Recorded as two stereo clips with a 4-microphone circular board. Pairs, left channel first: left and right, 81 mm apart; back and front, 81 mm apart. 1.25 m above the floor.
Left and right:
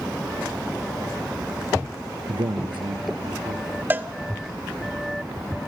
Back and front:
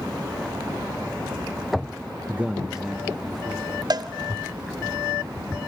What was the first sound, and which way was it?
A man speaking, 70° right.